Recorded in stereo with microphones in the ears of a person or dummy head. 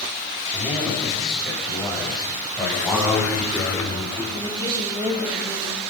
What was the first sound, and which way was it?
A man speaking, 5° right (ahead or behind).